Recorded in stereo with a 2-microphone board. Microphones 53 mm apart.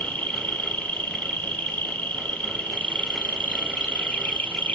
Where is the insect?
25° left (ahead or behind), 1.4 m.